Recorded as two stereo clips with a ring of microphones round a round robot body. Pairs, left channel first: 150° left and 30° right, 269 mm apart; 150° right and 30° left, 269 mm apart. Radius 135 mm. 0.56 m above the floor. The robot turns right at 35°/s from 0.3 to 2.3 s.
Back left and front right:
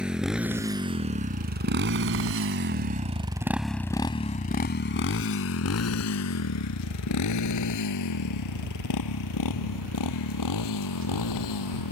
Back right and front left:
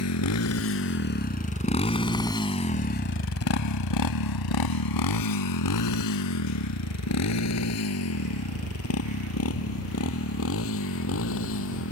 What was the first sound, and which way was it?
A motorcycle, 115° right.